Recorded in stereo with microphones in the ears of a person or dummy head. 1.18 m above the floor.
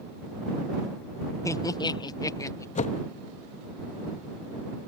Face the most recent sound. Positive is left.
turn(degrees=35)  # may be behind; listen again after turning